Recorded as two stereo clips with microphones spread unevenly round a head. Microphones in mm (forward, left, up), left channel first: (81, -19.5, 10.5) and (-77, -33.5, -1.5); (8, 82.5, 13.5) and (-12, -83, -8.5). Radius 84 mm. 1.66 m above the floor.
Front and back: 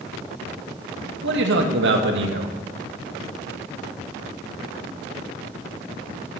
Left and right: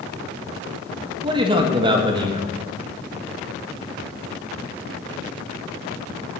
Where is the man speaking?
160° right, 1.8 m.